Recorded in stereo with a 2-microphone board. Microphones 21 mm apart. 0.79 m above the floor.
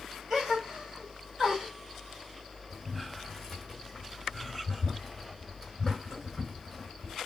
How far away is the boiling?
About 5 m.